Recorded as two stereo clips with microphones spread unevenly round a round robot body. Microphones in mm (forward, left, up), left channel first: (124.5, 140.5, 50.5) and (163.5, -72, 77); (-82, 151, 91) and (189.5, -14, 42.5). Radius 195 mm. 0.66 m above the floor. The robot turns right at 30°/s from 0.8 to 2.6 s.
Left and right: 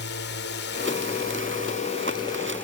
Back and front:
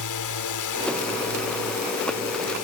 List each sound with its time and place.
0.0 s a drone: 125° left; by 2.6 s straight behind